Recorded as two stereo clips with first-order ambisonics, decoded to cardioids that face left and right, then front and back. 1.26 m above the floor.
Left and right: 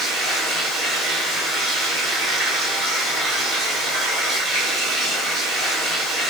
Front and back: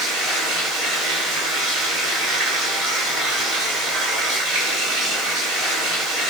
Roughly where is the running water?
Behind right.